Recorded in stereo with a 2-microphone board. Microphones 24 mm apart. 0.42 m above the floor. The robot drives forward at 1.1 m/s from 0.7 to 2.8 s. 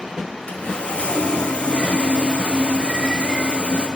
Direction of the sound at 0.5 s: 65° left (ahead or behind).